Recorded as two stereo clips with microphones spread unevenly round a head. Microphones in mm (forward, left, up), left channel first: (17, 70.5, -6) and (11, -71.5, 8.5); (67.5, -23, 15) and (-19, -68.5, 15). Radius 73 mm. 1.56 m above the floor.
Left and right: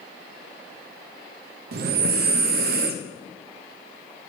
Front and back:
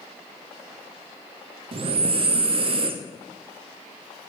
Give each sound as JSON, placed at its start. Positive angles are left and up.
{"t": 1.7, "sound": "breathing", "azimuth_deg": -120, "distance_m": 0.6}